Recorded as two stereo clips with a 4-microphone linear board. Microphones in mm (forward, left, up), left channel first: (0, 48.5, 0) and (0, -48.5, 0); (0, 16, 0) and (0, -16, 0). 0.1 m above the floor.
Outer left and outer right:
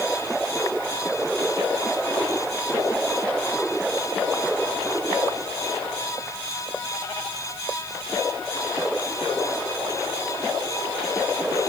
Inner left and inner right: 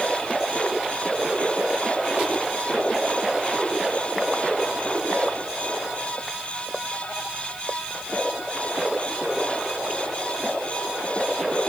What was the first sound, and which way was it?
Only background noise.